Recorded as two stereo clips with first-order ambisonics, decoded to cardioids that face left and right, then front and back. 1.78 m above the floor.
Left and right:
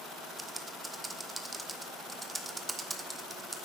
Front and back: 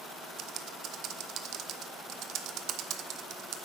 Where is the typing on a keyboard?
170° right, 0.7 m.